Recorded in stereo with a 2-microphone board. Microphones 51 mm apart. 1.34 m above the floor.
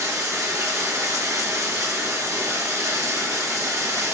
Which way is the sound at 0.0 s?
85° right.